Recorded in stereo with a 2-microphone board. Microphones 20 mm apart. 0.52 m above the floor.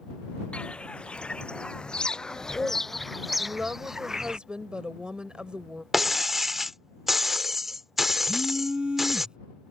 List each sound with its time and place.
0.5 s footsteps: 75° left (ahead or behind); by 4.4 s 30° right (ahead or behind)
3.4 s a woman speaking: 55° right (ahead or behind)
5.9 s breaking glass: 20° right (ahead or behind)
8.3 s a phone buzzing: 55° right (ahead or behind)